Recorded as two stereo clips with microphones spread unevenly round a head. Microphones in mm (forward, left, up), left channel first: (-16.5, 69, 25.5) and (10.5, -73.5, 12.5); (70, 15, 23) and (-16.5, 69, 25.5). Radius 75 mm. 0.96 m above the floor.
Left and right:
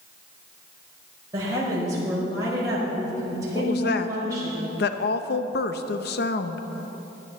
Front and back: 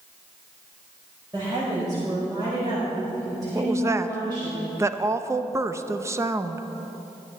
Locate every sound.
1.3 s a woman speaking: 150° right, 5 m
3.5 s a woman speaking: 85° left, 0.7 m